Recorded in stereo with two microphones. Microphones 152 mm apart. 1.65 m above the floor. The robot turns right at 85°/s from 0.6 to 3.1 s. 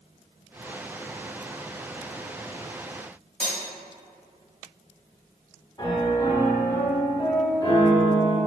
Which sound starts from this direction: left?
A piano, at 5.8 s.